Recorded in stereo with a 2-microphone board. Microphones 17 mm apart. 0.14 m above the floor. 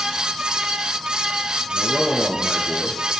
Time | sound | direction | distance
1.7 | a man speaking | 55° left (ahead or behind) | 2.5 m